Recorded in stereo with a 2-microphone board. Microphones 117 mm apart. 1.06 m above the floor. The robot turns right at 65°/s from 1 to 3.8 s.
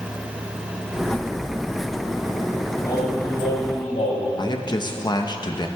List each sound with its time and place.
2.8 s singing: 25° left, 3.5 m; by 4.3 s 90° left, 3.5 m
4.4 s a man speaking: 40° left (ahead or behind), 0.9 m